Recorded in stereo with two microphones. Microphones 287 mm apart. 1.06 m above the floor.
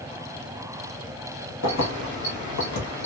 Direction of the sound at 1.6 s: 65° left (ahead or behind).